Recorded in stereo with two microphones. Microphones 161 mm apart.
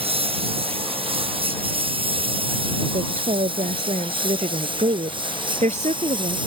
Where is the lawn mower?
35° right (ahead or behind); by 6.5 s 30° right (ahead or behind).